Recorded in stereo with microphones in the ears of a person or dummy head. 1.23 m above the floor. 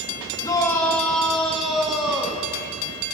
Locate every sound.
0.4 s a shout: 20° left (ahead or behind), 1.4 m; by 2.5 s 10° right (ahead or behind), 2 m